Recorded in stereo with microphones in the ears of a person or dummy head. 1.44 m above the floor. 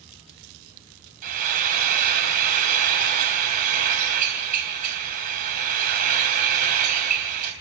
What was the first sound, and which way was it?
Frying, 50° right (ahead or behind).